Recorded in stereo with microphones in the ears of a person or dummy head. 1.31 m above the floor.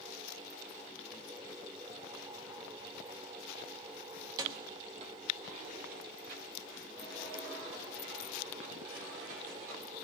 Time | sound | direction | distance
4.2 | keys jangling | 20° right (ahead or behind) | 1.6 m